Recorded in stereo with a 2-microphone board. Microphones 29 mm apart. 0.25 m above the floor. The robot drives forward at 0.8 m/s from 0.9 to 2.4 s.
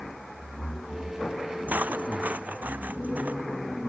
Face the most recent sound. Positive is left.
turn(degrees=-80)